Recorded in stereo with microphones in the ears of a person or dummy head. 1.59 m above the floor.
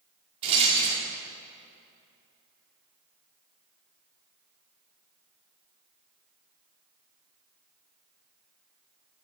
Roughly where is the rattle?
Right.